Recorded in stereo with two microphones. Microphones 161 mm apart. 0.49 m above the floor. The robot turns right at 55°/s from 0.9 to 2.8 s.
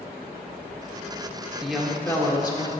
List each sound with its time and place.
1.6 s a woman speaking: 5° right, 1.3 m; by 2.7 s 55° left, 1.3 m